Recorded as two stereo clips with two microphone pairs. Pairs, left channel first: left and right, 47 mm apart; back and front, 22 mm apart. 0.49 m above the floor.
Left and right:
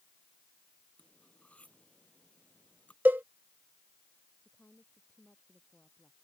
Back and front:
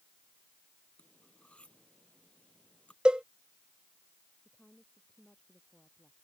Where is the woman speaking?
150° left.